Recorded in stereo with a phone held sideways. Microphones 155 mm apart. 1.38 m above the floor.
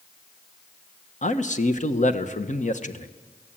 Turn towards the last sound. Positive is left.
turn(degrees=55)  # may be behind; listen again after turning